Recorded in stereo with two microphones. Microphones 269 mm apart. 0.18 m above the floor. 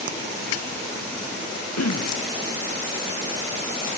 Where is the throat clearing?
80° left.